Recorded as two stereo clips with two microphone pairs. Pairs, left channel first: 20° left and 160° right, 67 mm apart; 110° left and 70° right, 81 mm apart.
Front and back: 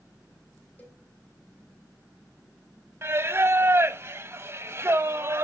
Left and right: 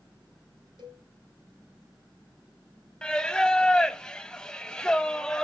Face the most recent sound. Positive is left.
turn(degrees=-175)